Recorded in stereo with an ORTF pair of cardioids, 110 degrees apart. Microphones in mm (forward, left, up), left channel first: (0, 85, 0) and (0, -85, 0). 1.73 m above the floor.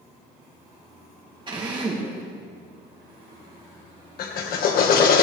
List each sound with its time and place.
1.5 s a drill: 30° right, 3 m
4.2 s a drill: 65° left, 1.8 m